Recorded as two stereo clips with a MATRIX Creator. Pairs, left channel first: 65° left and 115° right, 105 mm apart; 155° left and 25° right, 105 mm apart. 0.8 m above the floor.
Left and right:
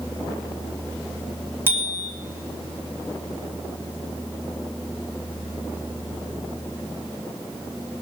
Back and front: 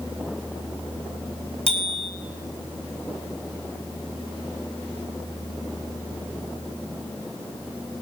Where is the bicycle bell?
Straight behind, 2 m.